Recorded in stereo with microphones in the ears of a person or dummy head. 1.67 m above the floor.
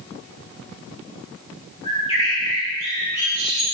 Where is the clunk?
I don't hear a clunk.